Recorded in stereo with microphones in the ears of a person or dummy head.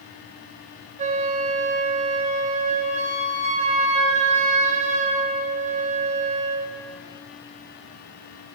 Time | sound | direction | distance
1.0 | a flute | 40° right (ahead or behind) | 0.6 m